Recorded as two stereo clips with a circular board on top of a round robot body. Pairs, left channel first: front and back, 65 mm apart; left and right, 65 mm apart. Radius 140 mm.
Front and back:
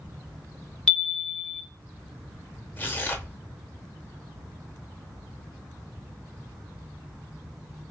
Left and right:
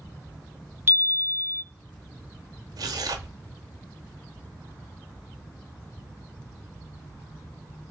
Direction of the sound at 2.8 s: 65° right.